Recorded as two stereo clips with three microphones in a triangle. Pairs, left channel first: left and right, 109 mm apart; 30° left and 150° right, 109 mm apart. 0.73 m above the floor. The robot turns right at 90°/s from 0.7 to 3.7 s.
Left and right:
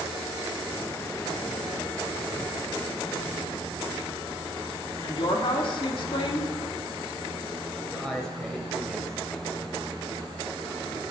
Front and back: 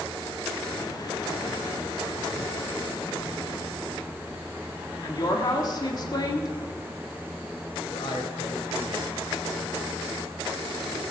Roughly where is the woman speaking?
Left.